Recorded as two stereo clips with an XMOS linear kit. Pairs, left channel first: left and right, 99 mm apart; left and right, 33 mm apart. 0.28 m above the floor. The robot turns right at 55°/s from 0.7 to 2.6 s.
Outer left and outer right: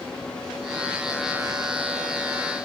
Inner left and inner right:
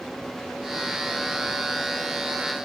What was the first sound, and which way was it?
Only background noise.